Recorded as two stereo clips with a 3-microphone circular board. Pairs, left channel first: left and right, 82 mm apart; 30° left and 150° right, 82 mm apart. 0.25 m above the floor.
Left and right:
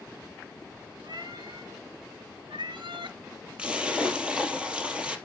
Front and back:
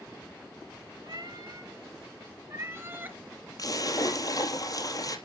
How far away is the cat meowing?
About 2.5 m.